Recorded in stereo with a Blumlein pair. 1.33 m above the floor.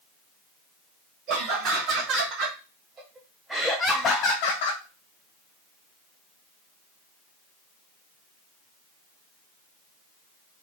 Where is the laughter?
40° right, 1.6 m; by 4.8 s 65° left, 0.6 m.